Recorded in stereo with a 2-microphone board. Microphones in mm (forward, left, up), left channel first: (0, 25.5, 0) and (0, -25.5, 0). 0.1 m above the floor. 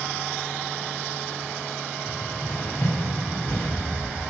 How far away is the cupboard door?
About 5 m.